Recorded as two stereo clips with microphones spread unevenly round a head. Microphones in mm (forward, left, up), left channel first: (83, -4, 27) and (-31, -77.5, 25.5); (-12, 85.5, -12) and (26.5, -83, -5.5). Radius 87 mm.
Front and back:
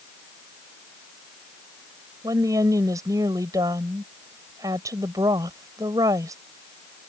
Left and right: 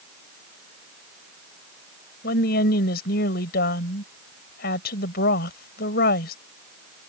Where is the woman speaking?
140° left.